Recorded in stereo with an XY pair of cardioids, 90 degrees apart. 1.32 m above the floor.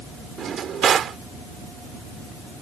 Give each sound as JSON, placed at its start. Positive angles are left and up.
{"t": 0.4, "sound": "a drawer", "azimuth_deg": -65}